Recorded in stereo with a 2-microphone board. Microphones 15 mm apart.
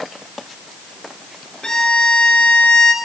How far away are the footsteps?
No footsteps in this recording.